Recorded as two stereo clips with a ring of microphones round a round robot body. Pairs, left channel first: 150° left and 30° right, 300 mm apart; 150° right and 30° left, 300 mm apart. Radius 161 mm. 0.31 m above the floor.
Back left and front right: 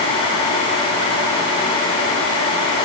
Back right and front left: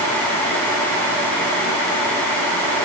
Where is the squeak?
No squeak in this recording.